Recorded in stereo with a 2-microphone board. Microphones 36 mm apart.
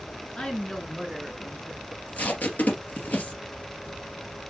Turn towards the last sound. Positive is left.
turn(degrees=50)  # may be behind; listen again after turning